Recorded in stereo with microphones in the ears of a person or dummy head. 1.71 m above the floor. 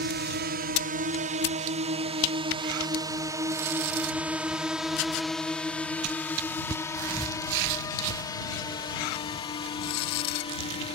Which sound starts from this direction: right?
A drone, at 0.0 s.